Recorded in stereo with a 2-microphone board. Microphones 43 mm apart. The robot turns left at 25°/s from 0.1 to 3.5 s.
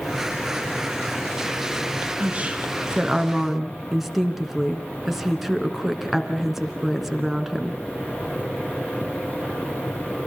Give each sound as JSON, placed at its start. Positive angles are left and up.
{"t": 2.2, "sound": "a woman speaking", "azimuth_deg": -140, "distance_m": 3.0}